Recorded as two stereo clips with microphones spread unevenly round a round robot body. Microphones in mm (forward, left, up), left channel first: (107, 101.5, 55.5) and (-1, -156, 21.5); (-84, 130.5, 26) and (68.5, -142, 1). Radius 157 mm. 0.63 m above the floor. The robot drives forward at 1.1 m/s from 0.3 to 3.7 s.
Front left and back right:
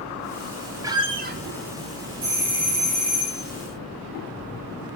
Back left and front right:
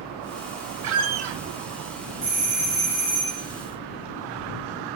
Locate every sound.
0.8 s a squeak: 30° right, 1.1 m; by 1.4 s 65° right, 0.7 m
2.2 s a doorbell: 105° right, 3.5 m; by 3.4 s 125° right, 4 m